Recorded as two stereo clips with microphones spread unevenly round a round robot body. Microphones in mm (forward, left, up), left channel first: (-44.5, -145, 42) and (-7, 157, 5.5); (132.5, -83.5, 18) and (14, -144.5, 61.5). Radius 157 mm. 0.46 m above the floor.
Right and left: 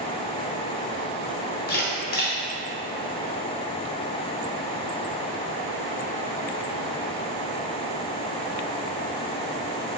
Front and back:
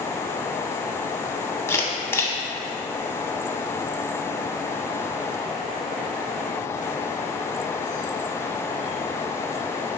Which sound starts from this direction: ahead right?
A camera shutter, at 1.7 s.